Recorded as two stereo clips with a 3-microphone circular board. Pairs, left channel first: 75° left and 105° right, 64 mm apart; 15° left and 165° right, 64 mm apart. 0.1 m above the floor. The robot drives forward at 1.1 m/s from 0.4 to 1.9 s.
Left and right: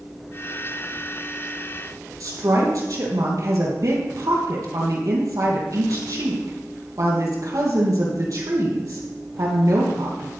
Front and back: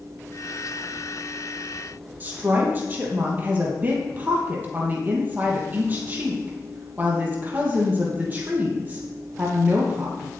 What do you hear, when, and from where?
2.2 s a woman speaking: 110° right, 3 m